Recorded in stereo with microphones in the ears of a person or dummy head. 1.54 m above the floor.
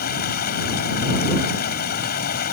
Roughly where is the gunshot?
No gunshot in this recording.